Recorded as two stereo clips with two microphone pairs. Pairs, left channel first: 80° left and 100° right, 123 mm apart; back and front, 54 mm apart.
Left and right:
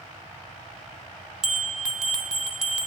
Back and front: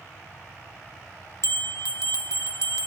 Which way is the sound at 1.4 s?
175° left.